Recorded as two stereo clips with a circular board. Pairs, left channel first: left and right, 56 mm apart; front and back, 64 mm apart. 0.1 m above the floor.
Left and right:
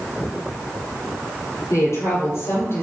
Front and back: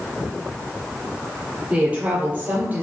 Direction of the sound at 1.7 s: 110° left.